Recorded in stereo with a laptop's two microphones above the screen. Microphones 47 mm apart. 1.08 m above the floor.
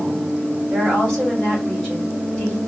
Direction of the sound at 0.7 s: 15° left (ahead or behind).